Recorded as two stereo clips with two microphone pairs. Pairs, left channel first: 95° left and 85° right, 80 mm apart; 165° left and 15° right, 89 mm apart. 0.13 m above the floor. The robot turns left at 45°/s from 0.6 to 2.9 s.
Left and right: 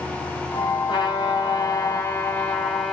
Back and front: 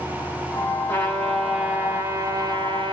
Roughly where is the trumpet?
Left.